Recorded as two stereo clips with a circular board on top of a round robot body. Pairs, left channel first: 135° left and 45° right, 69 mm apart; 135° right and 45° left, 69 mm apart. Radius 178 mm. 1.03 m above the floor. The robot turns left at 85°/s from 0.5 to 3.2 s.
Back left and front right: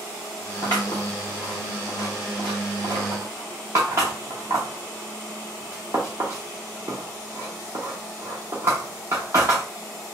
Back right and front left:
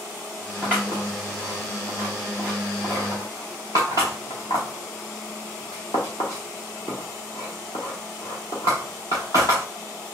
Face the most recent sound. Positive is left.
turn(degrees=-100)